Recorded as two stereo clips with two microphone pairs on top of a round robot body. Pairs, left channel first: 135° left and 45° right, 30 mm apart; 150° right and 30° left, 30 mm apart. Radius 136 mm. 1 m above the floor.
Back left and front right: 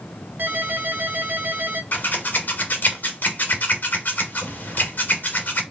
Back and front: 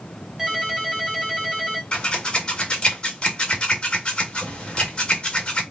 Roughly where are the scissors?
Behind left.